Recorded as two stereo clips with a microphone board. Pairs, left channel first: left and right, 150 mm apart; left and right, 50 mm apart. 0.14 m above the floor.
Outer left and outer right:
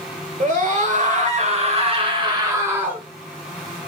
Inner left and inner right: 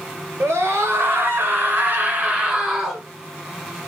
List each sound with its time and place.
0.4 s a scream: 60° right (ahead or behind), 3 m; by 3.0 s 10° right (ahead or behind), 1.9 m